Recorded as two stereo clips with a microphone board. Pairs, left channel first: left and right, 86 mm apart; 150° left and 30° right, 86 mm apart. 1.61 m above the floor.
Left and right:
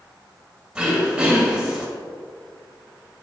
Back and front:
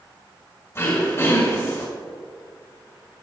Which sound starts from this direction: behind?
Throat clearing, at 0.8 s.